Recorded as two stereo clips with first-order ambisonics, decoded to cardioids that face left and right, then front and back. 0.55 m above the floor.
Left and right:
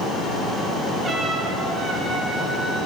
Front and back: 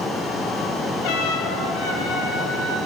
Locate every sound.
1.0 s a trumpet: 20° right, 3.5 m